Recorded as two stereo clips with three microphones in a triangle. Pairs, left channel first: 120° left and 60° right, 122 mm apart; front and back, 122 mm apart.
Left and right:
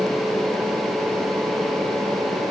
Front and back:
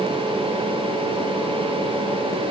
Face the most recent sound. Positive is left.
No sound to turn to.